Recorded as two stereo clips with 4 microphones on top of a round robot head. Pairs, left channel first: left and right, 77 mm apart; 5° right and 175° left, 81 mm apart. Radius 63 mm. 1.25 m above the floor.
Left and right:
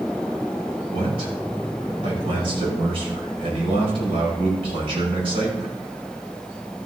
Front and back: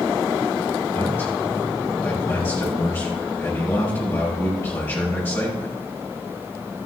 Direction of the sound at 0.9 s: 75° right.